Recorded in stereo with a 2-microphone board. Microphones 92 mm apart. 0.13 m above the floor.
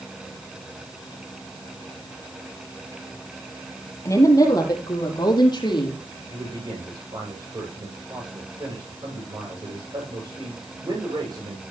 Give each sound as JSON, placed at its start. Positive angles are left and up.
{"t": 4.0, "sound": "a woman speaking", "side_deg": 35, "distance_m": 4.0}
{"t": 6.3, "sound": "a man speaking", "side_deg": -50, "distance_m": 9.5}